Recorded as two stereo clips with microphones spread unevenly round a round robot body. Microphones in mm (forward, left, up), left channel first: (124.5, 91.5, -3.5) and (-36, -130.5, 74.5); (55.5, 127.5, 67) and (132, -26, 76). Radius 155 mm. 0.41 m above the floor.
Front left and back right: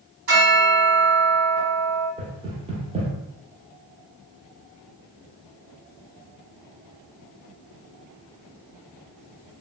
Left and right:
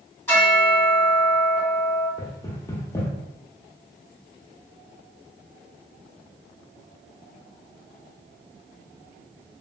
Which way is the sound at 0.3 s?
175° right.